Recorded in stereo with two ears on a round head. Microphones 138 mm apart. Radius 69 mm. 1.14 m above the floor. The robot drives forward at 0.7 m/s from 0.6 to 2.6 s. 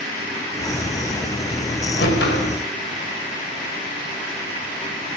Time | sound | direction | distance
2.0 | a whoosh | 75° left (ahead or behind) | 5 m